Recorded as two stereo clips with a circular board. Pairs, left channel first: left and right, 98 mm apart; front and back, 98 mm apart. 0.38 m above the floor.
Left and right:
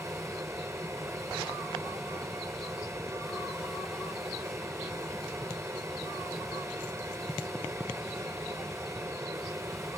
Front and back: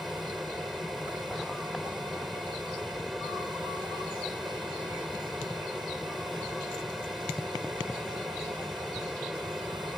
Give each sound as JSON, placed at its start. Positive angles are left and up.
{"t": 0.0, "sound": "an aircraft", "azimuth_deg": -90}